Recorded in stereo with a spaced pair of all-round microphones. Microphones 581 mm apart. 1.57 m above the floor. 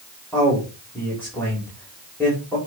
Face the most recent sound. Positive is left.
turn(degrees=5)  # may be behind; listen again after turning